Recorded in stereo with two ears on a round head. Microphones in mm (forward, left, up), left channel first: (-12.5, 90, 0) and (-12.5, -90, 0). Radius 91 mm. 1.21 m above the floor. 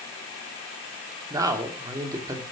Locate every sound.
1.3 s a man speaking: 15° right (ahead or behind), 2.5 m